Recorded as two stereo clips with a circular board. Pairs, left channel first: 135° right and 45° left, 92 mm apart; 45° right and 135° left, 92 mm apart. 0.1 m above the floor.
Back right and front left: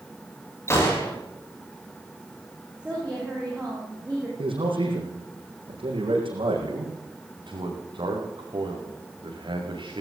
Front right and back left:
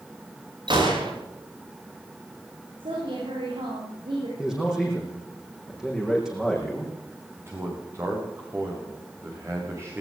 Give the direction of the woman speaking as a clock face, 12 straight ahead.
8 o'clock.